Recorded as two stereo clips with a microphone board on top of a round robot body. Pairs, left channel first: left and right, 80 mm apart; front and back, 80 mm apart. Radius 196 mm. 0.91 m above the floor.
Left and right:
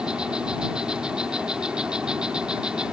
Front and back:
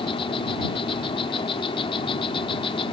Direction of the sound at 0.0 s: 10° right.